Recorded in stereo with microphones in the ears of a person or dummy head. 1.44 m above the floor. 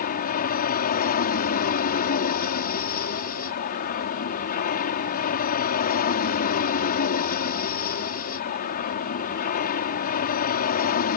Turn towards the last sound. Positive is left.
turn(degrees=40)  # may be behind; listen again after turning